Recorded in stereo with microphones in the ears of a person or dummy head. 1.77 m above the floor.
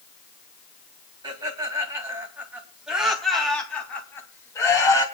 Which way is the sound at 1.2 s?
20° right (ahead or behind).